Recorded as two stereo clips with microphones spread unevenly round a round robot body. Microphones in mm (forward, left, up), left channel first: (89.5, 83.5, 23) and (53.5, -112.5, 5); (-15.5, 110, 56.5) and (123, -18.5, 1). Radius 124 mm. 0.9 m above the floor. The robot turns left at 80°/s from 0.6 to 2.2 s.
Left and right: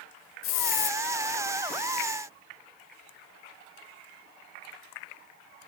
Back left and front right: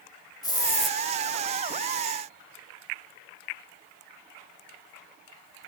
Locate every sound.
0.4 s a hiss: 70° left, 2 m; by 1.0 s 40° left, 2 m